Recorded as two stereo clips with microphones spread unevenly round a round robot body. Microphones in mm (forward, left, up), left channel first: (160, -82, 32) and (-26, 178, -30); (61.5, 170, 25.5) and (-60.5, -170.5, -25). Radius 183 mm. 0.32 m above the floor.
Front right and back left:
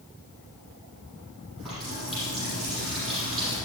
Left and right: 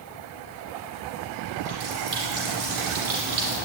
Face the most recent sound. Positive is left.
turn(degrees=-145)